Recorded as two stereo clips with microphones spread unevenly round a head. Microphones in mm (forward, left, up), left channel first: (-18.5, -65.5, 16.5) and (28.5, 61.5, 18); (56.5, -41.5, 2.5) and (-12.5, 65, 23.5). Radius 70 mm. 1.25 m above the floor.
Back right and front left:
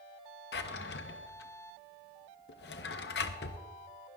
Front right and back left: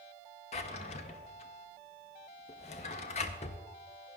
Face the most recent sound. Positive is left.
turn(degrees=-110)